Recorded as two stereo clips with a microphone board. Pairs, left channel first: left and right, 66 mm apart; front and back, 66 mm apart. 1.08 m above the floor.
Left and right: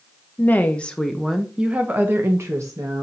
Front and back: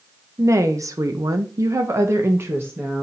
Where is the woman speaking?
150° left, 1.0 m; by 3.0 s 120° right, 1.2 m.